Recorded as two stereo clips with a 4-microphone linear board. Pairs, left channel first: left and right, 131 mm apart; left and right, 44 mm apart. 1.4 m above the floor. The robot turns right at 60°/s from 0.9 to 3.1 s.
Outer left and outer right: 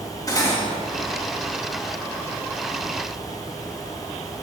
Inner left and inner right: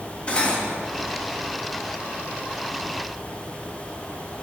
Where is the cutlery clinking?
25° left (ahead or behind), 1.3 m.